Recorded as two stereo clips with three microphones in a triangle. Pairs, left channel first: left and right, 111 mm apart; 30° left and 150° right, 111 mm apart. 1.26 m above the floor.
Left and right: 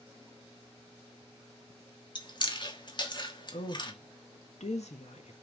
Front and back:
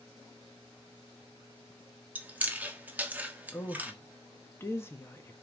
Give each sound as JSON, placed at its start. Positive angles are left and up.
{"t": 2.1, "sound": "chewing", "azimuth_deg": 135, "distance_m": 1.3}
{"t": 3.5, "sound": "a woman speaking", "azimuth_deg": 95, "distance_m": 1.4}